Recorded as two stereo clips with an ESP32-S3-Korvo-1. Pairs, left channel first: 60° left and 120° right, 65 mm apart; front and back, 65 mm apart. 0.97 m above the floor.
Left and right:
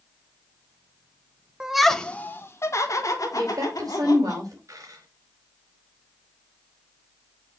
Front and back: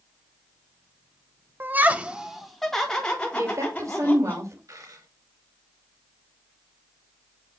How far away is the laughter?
About 0.9 m.